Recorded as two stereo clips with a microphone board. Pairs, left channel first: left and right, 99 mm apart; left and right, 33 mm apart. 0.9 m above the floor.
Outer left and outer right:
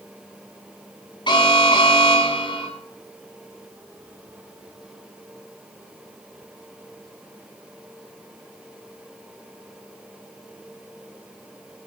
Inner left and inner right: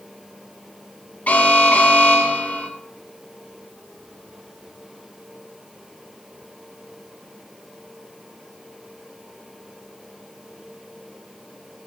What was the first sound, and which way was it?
An alarm, 50° left (ahead or behind).